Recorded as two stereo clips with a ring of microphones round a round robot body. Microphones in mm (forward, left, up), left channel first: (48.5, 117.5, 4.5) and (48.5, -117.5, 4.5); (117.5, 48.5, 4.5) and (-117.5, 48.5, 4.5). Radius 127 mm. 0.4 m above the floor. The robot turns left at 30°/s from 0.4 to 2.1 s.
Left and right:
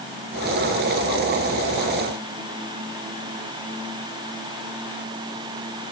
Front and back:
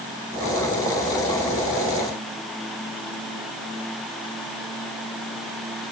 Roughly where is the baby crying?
No baby crying in this recording.